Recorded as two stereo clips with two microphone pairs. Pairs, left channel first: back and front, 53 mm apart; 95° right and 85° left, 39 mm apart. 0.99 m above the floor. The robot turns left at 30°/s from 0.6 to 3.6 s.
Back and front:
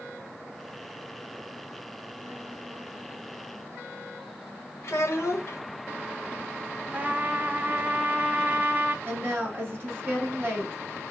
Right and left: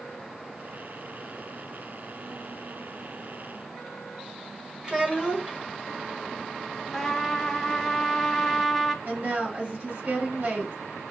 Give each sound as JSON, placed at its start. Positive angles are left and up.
{"t": 4.8, "sound": "a child speaking", "azimuth_deg": 150, "distance_m": 1.1}
{"t": 6.9, "sound": "a trumpet", "azimuth_deg": -15, "distance_m": 0.7}
{"t": 9.1, "sound": "a woman speaking", "azimuth_deg": 50, "distance_m": 3.0}